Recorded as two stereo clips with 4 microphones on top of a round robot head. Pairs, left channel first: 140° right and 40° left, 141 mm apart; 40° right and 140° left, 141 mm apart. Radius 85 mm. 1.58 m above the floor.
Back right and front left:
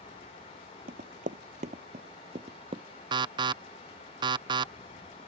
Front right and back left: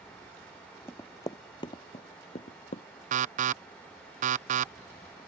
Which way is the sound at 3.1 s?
105° left.